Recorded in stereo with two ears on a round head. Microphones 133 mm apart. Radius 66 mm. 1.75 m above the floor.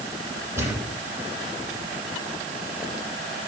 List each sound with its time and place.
0.6 s a thud: 20° right (ahead or behind), 10 m